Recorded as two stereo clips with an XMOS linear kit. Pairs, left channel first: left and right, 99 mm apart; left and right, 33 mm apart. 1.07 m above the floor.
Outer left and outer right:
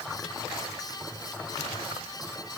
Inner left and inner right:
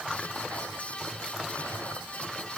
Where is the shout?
I don't hear a shout.